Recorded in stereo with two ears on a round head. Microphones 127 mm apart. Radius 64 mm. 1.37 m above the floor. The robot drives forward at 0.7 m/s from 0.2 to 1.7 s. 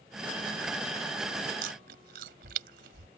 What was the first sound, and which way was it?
Chewing, 70° right (ahead or behind).